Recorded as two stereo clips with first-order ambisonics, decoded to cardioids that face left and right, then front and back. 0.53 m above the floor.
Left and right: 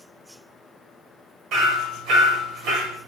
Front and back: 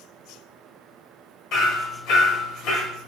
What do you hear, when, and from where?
1.5 s hammering: 45° right, 0.8 m